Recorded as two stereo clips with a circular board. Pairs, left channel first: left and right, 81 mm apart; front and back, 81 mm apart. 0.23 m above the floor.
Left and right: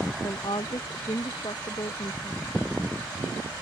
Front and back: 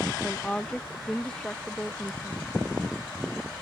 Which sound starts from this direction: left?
A woman speaking, at 0.2 s.